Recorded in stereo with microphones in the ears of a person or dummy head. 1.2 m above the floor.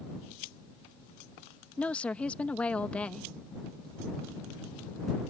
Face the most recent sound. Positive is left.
turn(degrees=5)  # may be behind; listen again after turning